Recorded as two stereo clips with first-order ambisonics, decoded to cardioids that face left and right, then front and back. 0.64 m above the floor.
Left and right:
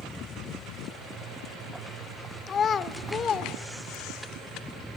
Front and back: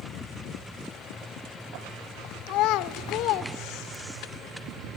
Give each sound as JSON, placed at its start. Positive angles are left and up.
{"t": 2.5, "sound": "a child speaking", "azimuth_deg": 25, "distance_m": 0.7}